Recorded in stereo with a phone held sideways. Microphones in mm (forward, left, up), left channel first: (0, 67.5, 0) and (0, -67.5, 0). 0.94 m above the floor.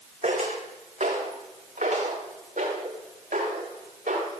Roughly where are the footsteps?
Right.